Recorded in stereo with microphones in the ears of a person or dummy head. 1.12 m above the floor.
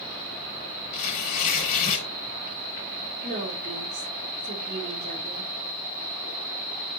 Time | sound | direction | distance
0.9 | tearing paper | 45° left (ahead or behind) | 5 m
3.2 | a woman speaking | 55° right (ahead or behind) | 4 m